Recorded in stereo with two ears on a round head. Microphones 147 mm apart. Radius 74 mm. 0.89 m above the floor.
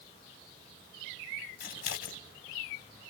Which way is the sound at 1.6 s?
60° left (ahead or behind).